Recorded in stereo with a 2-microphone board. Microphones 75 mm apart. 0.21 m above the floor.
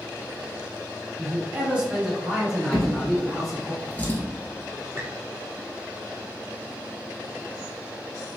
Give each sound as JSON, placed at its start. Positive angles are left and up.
{"t": 1.2, "sound": "a man speaking", "side_deg": -20, "distance_m": 1.5}
{"t": 2.7, "sound": "a drawer", "side_deg": 25, "distance_m": 1.0}
{"t": 5.0, "sound": "a squeak", "side_deg": -30, "distance_m": 0.8}